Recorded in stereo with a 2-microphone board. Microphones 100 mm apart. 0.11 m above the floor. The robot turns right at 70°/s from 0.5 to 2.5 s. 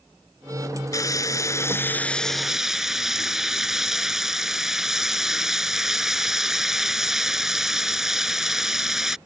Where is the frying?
80° left; by 9.2 s 170° right.